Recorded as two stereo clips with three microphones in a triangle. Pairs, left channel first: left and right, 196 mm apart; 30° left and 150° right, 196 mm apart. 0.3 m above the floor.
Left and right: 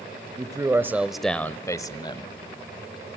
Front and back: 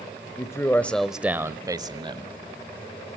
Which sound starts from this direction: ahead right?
A man speaking, at 0.4 s.